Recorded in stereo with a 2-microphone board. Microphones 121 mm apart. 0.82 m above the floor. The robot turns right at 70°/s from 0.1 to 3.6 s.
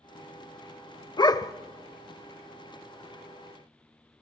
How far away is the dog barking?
About 0.6 m.